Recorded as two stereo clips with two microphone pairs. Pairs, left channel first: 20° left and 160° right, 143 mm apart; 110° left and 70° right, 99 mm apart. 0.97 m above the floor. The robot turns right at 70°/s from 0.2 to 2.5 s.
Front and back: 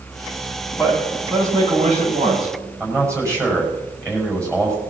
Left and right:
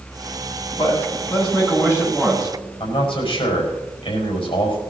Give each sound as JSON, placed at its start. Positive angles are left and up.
{"t": 0.8, "sound": "a man speaking", "azimuth_deg": 95, "distance_m": 7.0}
{"t": 2.8, "sound": "a man speaking", "azimuth_deg": 135, "distance_m": 5.0}